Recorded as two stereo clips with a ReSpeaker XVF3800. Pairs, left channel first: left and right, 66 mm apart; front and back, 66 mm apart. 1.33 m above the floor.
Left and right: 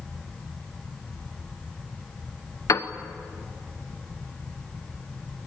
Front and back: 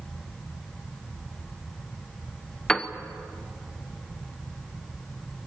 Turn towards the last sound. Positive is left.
turn(degrees=75)